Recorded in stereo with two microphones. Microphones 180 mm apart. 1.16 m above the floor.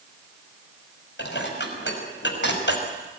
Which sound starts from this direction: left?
Dishes clattering, at 1.2 s.